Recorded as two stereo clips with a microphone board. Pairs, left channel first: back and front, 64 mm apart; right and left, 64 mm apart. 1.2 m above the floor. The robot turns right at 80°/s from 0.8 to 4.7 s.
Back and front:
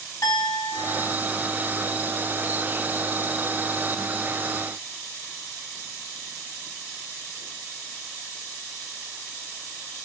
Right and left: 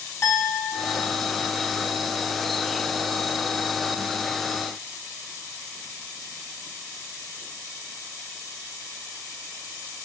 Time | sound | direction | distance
0.2 | a clink | 140° right | 4.5 m